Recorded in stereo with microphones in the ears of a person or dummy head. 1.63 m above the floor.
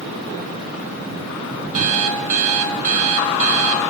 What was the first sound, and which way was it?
An alarm clock, 40° right (ahead or behind).